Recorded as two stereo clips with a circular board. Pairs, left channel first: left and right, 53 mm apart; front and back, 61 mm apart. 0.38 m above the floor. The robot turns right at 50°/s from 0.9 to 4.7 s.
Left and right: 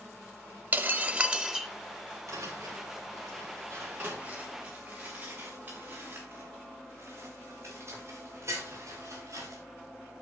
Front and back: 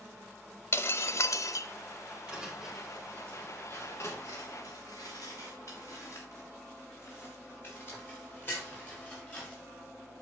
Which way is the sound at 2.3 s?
110° right.